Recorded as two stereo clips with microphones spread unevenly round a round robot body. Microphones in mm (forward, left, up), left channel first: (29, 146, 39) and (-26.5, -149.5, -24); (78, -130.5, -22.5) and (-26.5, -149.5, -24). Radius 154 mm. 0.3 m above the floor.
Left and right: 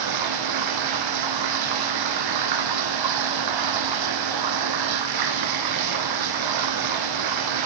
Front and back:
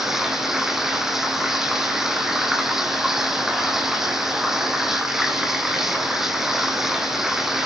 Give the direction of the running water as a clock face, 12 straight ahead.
3 o'clock.